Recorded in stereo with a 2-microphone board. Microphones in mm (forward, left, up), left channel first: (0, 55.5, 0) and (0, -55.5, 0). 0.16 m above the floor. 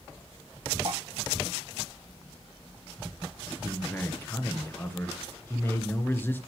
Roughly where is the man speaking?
Centre.